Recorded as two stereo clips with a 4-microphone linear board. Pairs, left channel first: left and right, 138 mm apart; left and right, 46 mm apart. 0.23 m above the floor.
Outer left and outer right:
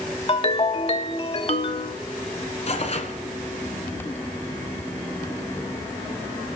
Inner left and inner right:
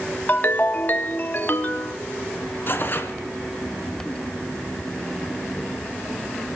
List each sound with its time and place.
0.3 s a ringtone: 40° left (ahead or behind), 0.7 m
2.7 s tearing paper: 50° left (ahead or behind), 1.4 m